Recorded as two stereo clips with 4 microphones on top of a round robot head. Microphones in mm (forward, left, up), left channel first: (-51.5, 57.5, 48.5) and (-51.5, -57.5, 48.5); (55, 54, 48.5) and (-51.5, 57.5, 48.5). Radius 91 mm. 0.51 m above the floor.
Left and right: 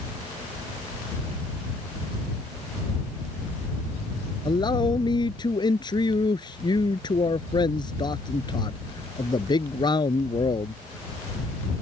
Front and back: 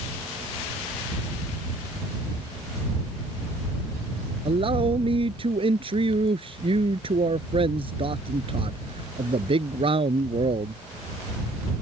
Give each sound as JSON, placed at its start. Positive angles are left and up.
{"t": 4.5, "sound": "a man speaking", "azimuth_deg": 140}